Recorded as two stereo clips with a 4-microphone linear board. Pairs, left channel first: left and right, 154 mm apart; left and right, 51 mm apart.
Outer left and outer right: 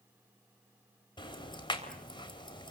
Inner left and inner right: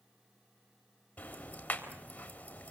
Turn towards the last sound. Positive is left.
turn(degrees=30)  # may be behind; listen again after turning